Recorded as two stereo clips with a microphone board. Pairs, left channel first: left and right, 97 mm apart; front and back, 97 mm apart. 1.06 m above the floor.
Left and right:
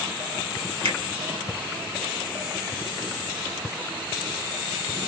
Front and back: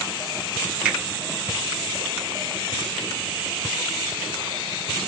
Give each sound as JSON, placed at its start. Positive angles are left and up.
{"t": 0.8, "sound": "a finger snap", "azimuth_deg": -105, "distance_m": 2.0}